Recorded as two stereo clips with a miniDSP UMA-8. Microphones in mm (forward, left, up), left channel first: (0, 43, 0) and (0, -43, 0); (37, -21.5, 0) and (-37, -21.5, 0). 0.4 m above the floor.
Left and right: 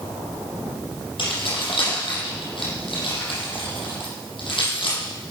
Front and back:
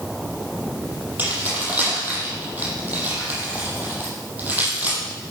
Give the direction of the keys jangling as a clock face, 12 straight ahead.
8 o'clock.